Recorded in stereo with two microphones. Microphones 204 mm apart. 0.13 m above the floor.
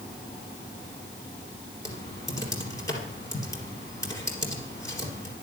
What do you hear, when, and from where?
1.9 s typing on a keyboard: 15° left (ahead or behind), 3 m